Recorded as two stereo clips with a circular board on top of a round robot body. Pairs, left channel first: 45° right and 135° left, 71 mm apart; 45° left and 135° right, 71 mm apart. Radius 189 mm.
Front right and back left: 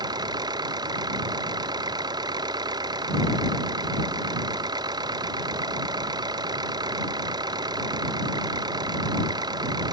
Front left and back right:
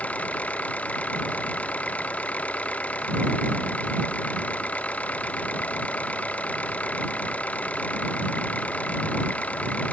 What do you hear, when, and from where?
0.0 s an engine running: 115° left